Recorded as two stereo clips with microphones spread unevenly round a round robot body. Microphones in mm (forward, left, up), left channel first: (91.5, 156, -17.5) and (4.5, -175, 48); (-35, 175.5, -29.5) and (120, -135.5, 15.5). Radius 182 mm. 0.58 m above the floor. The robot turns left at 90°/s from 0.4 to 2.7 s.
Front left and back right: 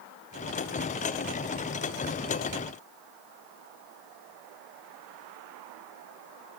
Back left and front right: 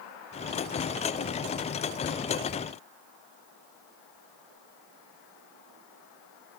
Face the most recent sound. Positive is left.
No sound to turn to.